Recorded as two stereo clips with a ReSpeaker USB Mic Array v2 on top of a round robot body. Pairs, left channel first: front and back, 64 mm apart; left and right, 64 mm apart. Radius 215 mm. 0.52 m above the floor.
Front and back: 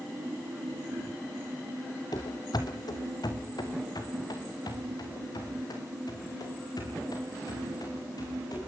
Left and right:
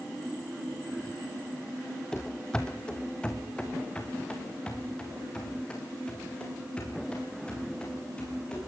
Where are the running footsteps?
10° left, 0.5 m; by 8.6 s 15° left, 10.5 m.